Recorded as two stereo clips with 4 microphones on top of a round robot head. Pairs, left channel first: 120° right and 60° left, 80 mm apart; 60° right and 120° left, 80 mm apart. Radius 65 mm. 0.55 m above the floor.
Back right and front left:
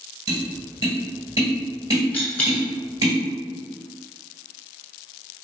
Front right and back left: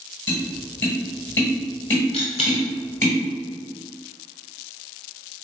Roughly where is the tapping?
Ahead.